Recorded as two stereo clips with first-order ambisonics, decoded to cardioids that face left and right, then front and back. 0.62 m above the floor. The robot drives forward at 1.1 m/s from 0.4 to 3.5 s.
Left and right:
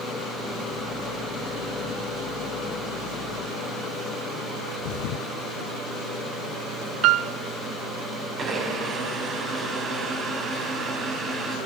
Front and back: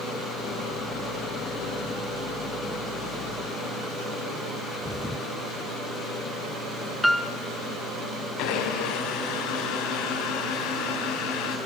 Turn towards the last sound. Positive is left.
turn(degrees=-30)